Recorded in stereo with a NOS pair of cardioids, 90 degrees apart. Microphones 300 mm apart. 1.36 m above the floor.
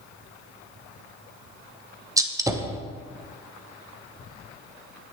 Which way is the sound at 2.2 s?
10° right.